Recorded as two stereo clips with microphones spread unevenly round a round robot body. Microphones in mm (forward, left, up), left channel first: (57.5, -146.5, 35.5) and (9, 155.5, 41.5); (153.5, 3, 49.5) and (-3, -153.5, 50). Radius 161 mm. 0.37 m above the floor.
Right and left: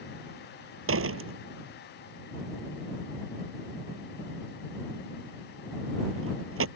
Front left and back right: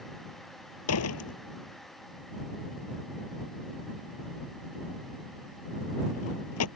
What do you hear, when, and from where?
0.9 s a door slam: 50° left